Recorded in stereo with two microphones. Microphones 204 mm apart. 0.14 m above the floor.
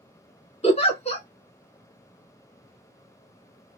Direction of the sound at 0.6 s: 30° left (ahead or behind).